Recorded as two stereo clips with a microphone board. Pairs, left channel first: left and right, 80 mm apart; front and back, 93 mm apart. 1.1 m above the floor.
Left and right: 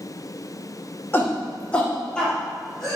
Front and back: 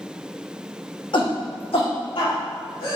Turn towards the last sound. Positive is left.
turn(degrees=5)